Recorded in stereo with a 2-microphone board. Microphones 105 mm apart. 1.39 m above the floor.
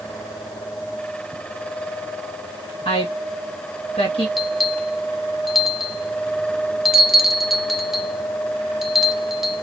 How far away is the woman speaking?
About 2.0 m.